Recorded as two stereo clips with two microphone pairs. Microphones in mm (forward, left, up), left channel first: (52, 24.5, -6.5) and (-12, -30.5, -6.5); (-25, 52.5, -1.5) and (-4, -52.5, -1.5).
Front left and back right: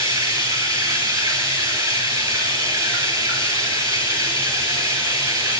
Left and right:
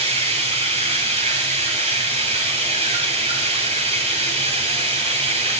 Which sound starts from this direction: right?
Running water, at 0.0 s.